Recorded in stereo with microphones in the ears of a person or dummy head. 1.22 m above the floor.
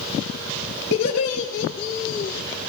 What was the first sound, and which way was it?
Laughter, 60° left (ahead or behind).